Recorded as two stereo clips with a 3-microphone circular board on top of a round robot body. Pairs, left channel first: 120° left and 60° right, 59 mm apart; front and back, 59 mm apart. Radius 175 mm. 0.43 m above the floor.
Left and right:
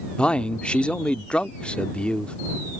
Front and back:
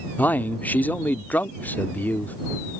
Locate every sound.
0.2 s a man speaking: 50° left